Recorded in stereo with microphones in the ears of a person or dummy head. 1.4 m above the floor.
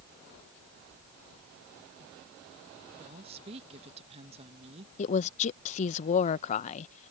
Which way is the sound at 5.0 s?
40° left (ahead or behind).